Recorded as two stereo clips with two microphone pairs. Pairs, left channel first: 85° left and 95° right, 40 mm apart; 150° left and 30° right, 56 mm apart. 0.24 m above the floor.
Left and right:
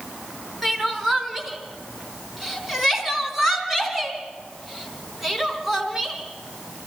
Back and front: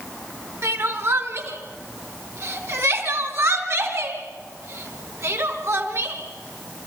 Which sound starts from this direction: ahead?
Crying, at 0.6 s.